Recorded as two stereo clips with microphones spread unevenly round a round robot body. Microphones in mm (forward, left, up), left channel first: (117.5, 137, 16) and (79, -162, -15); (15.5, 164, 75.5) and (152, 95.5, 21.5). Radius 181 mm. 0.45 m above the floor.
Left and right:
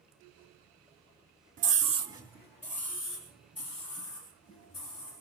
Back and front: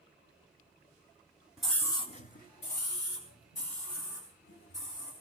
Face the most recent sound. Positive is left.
turn(degrees=155)